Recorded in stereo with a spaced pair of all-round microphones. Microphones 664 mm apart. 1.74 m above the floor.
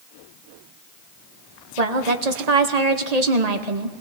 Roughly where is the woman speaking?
Right.